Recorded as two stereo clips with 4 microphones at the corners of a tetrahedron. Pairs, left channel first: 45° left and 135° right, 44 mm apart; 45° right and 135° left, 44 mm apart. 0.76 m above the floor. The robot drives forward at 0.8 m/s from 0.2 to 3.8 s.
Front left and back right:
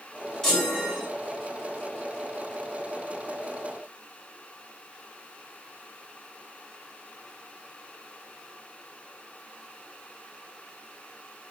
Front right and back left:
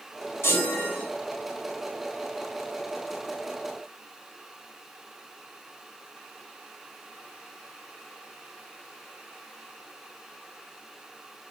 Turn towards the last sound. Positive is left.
turn(degrees=-45)